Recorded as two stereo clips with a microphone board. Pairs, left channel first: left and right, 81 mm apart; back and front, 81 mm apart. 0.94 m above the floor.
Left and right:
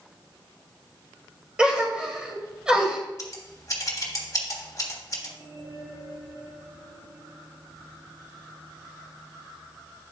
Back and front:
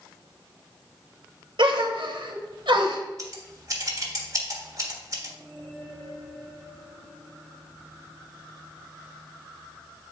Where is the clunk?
No clunk in this recording.